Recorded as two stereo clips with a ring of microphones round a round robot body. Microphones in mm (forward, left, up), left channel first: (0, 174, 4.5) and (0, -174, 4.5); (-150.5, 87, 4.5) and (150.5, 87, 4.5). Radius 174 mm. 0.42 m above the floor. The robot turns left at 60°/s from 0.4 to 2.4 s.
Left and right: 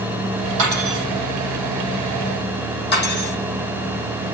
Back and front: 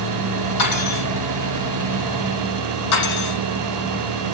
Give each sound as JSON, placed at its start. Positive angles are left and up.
{"t": 0.6, "sound": "cutlery clinking", "azimuth_deg": -130, "distance_m": 8.5}
{"t": 2.9, "sound": "cutlery clinking", "azimuth_deg": 155, "distance_m": 10.0}